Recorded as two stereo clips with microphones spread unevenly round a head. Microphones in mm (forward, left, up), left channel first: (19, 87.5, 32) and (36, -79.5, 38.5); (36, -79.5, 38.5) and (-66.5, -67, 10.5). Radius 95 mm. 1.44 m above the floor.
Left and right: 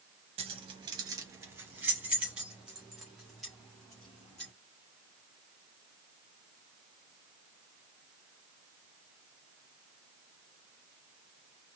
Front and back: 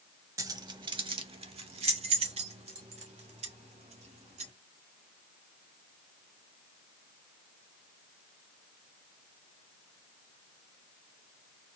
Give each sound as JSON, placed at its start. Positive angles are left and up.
{"t": 0.4, "sound": "keys jangling", "azimuth_deg": -125, "distance_m": 0.8}